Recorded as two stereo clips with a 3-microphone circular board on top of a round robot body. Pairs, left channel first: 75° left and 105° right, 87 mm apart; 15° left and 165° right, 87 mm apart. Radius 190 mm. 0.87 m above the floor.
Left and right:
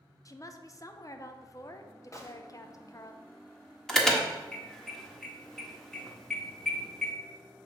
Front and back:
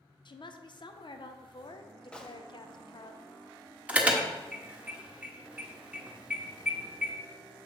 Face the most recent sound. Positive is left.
turn(degrees=150)